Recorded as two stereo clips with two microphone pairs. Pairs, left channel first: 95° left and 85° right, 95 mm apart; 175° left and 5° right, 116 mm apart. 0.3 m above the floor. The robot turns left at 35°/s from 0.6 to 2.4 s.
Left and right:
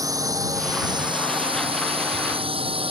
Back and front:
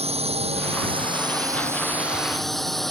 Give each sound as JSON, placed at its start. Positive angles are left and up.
{"t": 0.0, "sound": "a drone", "azimuth_deg": -35}